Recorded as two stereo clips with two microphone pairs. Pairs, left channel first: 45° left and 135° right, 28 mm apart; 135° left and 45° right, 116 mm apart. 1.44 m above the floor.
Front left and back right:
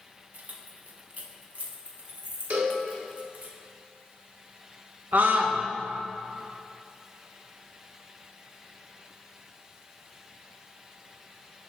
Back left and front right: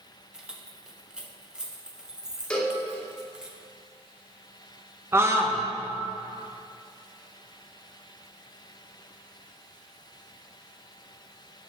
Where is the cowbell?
145° right, 1.6 m.